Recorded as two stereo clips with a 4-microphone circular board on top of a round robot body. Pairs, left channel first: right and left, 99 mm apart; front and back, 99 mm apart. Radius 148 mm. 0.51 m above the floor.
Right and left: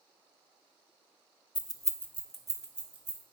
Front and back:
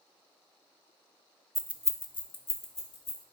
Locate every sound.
1.6 s keys jangling: 90° right, 0.5 m; by 3.2 s 15° left, 1.1 m